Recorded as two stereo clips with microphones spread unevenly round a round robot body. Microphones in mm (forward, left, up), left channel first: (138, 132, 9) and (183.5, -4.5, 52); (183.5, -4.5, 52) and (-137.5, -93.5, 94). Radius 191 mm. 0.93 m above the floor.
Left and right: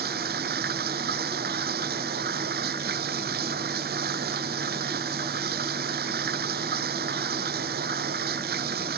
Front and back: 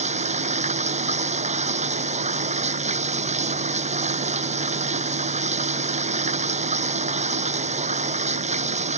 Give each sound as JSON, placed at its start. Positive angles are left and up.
{"t": 0.0, "sound": "running water", "azimuth_deg": -95}